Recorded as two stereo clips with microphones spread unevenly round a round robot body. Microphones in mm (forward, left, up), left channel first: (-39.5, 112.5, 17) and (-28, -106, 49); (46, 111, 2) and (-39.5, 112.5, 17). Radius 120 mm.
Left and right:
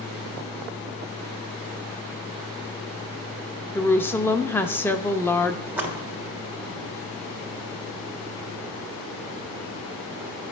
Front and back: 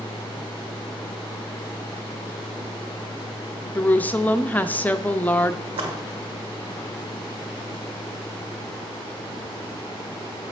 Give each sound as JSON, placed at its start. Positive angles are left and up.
{"t": 3.8, "sound": "a woman speaking", "azimuth_deg": 35, "distance_m": 0.6}
{"t": 5.7, "sound": "a splash", "azimuth_deg": -170, "distance_m": 1.4}